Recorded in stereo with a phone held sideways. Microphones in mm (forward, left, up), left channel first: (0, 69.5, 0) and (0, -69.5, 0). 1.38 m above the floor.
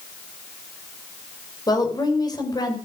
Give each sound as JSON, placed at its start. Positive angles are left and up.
{"t": 1.7, "sound": "a woman speaking", "side_deg": 30, "distance_m": 4.5}